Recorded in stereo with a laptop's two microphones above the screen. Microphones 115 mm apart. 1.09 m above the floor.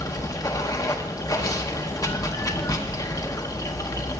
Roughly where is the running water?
Left.